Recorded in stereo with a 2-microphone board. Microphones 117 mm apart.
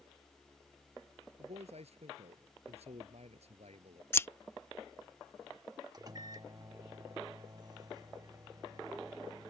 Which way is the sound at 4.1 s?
20° left (ahead or behind).